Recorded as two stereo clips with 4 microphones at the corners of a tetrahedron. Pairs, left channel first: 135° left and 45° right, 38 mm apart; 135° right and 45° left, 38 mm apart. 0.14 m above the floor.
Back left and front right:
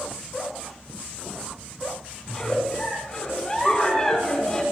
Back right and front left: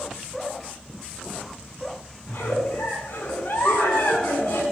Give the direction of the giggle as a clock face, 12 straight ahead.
5 o'clock.